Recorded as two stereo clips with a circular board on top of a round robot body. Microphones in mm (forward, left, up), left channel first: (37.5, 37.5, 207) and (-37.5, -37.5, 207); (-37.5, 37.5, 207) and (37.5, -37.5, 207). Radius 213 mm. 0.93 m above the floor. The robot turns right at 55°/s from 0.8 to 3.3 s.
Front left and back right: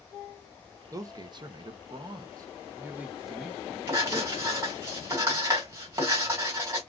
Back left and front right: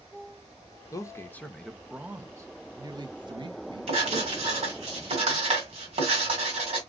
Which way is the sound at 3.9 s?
70° right.